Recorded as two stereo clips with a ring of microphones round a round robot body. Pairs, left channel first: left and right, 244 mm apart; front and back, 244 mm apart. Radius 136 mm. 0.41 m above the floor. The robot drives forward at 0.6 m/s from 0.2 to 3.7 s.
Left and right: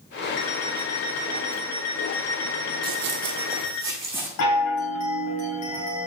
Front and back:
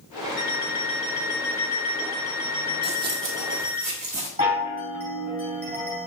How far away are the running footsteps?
About 0.8 m.